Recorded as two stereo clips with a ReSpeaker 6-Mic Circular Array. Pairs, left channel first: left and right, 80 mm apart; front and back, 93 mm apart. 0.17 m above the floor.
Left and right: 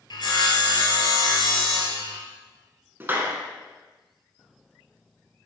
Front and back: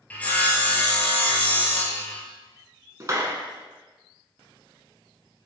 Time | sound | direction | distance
0.1 | sawing | 75° left | 1.3 m
3.0 | a clap | 140° right | 1.2 m